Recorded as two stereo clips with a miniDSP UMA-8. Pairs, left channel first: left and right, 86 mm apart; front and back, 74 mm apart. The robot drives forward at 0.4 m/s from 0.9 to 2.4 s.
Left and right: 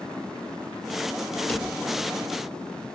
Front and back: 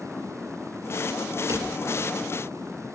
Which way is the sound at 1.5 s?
160° left.